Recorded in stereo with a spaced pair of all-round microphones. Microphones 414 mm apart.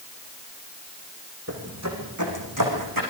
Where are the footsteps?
35° right (ahead or behind), 5 m; by 3.0 s 55° right (ahead or behind), 6.5 m.